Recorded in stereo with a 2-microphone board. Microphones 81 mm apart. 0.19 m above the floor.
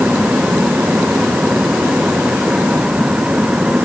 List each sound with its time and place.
Only background noise.